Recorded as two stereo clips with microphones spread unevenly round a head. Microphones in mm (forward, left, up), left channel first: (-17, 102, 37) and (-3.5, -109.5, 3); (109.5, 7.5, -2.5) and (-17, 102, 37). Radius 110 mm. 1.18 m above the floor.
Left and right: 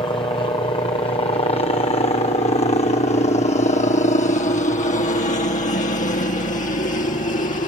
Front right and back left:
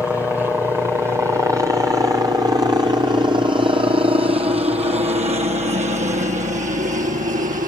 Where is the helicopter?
45° left; by 7.7 s 135° left.